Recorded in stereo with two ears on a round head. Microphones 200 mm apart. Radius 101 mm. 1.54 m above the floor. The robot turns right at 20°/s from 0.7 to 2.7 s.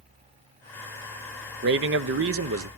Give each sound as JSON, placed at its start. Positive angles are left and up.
{"t": 1.6, "sound": "a man speaking", "side_deg": -50, "distance_m": 0.7}